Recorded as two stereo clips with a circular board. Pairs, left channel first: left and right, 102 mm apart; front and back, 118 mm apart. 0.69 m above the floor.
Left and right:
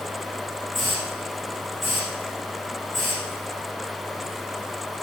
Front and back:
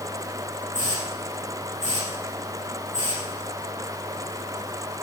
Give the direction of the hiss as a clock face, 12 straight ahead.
12 o'clock.